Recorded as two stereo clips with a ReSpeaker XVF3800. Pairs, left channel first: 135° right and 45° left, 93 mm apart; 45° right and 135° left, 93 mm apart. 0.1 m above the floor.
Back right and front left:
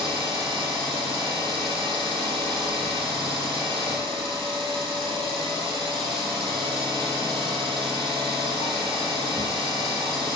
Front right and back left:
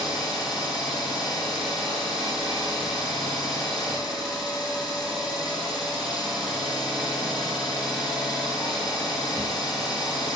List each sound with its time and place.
0.0 s an engine running: 55° left, 2 m